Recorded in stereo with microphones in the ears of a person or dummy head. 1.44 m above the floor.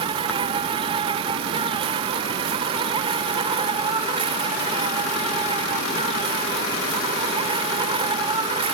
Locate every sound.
0.0 s an insect: 30° right (ahead or behind)